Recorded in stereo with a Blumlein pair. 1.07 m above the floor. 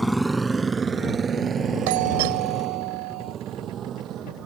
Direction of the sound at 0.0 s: Straight ahead.